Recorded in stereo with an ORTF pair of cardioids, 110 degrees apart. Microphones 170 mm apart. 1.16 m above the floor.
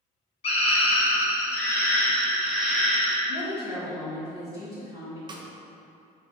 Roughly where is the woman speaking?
Ahead.